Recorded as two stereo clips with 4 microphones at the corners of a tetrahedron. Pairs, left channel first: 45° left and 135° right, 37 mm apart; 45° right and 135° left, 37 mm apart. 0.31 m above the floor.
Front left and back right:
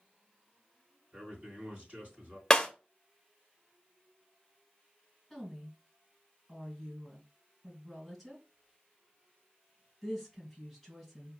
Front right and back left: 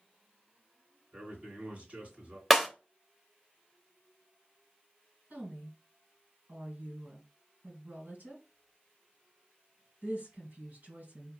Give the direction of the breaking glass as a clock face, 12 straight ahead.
10 o'clock.